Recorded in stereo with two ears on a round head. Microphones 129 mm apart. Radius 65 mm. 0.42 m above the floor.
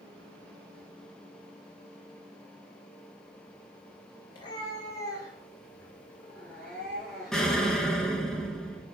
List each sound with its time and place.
4.3 s a cat meowing: 35° left (ahead or behind), 2.5 m; by 7.6 s 5° right (ahead or behind), 3.5 m
7.3 s an explosion: 5° left (ahead or behind), 1.6 m